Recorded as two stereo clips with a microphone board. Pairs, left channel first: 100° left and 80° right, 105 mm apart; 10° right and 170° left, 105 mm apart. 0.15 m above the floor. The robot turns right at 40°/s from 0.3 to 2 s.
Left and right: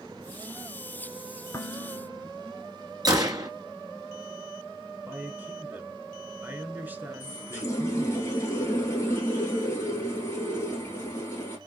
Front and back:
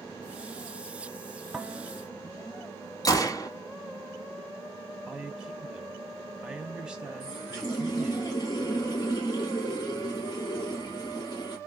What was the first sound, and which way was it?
Dishes clattering, 100° left.